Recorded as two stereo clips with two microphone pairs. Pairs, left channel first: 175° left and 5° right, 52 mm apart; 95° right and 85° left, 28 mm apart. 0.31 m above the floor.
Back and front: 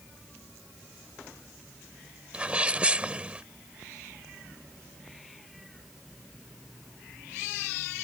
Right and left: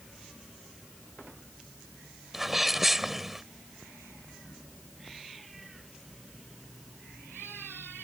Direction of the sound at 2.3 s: 20° left.